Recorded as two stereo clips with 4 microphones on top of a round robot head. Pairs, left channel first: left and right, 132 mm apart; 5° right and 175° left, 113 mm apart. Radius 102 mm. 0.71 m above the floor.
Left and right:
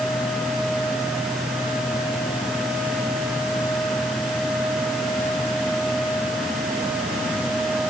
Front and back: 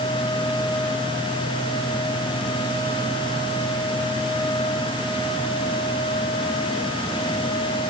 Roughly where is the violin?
No violin in this recording.